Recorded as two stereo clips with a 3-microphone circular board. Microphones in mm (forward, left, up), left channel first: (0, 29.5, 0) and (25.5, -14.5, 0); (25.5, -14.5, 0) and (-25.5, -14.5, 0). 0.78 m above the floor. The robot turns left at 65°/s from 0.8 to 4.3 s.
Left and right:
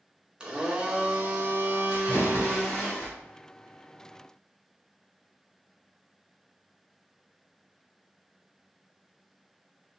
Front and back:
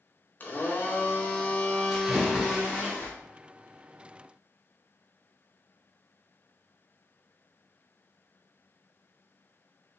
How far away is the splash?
About 1.5 m.